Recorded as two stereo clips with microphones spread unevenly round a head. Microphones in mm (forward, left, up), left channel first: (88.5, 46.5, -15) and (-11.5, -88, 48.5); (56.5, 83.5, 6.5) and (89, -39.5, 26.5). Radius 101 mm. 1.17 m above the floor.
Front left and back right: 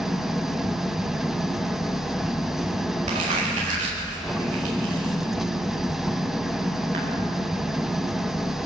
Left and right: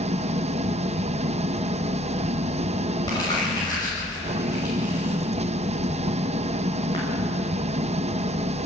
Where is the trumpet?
I don't hear a trumpet.